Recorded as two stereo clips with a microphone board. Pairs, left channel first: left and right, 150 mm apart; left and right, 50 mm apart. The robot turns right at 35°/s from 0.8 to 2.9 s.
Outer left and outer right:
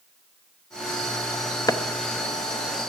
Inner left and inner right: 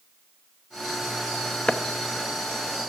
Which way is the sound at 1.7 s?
25° left (ahead or behind).